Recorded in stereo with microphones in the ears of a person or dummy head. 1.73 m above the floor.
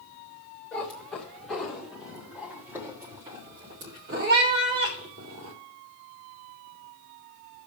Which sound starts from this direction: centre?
A cat meowing, at 0.7 s.